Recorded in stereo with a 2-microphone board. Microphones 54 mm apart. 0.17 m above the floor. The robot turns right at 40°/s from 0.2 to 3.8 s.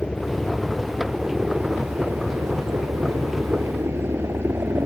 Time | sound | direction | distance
0.0 | a helicopter | 25° left (ahead or behind) | ?